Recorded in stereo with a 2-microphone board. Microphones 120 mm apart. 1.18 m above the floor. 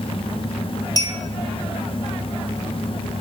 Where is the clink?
30° left (ahead or behind), 1.7 m.